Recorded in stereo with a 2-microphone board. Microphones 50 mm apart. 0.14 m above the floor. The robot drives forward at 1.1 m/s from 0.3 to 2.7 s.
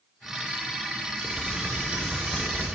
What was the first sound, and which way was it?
Typing on a keyboard, 25° right (ahead or behind).